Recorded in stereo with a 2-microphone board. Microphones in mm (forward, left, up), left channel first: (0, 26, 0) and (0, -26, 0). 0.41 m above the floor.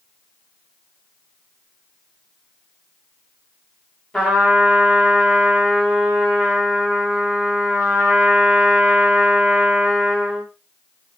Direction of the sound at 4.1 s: 5° left (ahead or behind).